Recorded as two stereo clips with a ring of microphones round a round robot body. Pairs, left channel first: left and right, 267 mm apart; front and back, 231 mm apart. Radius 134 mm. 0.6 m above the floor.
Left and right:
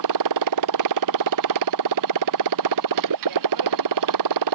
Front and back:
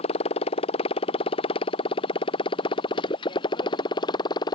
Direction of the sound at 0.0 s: 70° right.